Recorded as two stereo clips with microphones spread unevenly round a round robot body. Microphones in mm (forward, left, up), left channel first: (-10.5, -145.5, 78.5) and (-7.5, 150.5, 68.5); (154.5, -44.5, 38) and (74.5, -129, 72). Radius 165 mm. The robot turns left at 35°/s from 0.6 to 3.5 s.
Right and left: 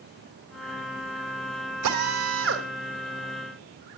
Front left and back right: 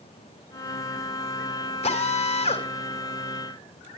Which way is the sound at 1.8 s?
65° left.